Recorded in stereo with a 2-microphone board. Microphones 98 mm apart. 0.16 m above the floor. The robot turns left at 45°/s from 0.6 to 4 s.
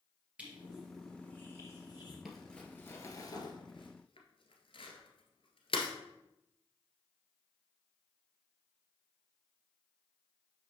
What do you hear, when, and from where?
0.4 s crushing: 15° right (ahead or behind), 3 m; by 2.1 s 50° left (ahead or behind), 3 m
2.2 s crumpling: centre (ahead or behind), 1.5 m; by 5.9 s 65° left (ahead or behind), 1.5 m